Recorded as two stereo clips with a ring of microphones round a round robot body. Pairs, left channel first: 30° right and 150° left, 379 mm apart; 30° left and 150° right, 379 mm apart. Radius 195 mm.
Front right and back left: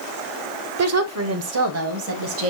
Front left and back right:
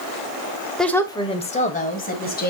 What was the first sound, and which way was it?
A woman speaking, 120° left.